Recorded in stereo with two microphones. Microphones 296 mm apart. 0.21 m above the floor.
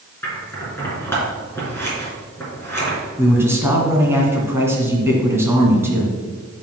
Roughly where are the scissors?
Centre.